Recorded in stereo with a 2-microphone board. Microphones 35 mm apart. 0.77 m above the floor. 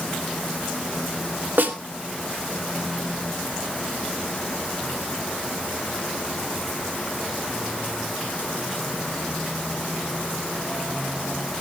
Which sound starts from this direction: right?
A snare drum, at 1.6 s.